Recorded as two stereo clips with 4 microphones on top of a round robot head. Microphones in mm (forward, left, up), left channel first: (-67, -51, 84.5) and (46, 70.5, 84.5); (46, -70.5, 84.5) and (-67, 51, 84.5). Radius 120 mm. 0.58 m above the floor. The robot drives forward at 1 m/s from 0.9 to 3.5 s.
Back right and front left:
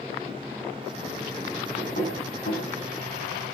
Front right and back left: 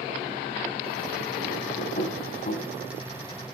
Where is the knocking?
85° right, 4 m; by 2.7 s 95° right, 4 m.